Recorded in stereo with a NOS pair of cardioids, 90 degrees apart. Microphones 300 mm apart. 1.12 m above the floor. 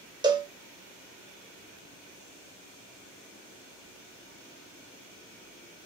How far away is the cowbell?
About 0.6 m.